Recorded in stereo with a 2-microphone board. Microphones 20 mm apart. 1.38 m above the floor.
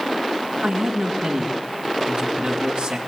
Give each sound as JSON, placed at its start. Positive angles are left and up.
{"t": 0.6, "sound": "a man speaking", "side_deg": -55, "distance_m": 2.5}